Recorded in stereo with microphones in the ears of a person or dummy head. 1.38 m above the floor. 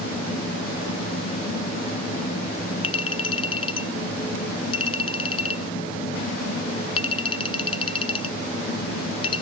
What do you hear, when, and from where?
0.0 s a fan: 50° left (ahead or behind), 5.5 m
2.8 s a clink: 30° left (ahead or behind), 0.6 m